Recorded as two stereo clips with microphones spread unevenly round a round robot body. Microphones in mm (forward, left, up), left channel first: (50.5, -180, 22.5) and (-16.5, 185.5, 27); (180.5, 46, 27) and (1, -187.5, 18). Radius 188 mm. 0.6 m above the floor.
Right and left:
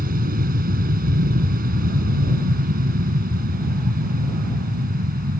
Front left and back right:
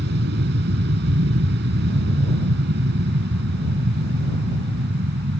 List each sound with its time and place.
0.0 s an aircraft: 170° left